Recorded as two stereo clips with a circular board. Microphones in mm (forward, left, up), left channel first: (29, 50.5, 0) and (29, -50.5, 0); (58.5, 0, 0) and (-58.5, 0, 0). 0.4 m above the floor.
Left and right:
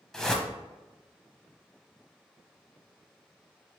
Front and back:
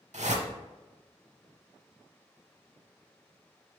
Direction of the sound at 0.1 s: 175° left.